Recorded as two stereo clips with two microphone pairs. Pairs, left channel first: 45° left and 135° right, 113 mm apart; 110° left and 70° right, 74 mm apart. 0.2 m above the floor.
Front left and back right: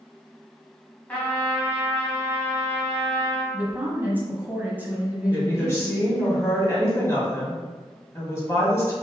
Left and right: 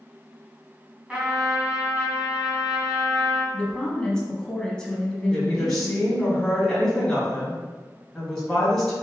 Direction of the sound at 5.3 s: 35° left.